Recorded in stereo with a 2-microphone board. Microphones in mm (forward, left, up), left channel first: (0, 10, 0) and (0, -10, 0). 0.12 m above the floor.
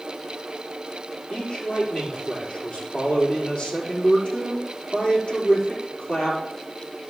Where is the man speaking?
70° left (ahead or behind), 4.5 m.